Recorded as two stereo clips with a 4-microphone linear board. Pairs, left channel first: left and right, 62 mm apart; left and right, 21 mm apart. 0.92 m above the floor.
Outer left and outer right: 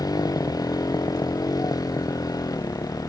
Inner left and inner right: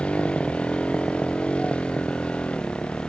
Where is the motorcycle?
85° left; by 3.1 s 80° left.